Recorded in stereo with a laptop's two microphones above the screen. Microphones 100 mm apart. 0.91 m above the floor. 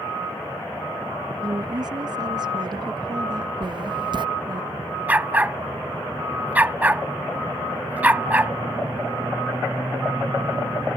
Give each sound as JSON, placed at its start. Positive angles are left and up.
{"t": 1.4, "sound": "a woman speaking", "side_deg": -45}
{"t": 3.6, "sound": "writing", "side_deg": -50}
{"t": 5.1, "sound": "a dog barking", "side_deg": -15}